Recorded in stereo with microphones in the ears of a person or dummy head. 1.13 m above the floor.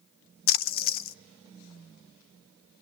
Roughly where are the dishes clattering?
I don't hear dishes clattering.